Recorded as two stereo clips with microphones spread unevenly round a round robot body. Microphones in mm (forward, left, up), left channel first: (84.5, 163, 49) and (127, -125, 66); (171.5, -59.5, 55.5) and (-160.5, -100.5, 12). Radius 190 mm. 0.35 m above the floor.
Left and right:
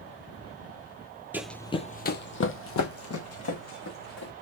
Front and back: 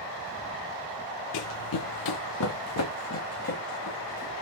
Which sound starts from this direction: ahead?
Running footsteps, at 1.3 s.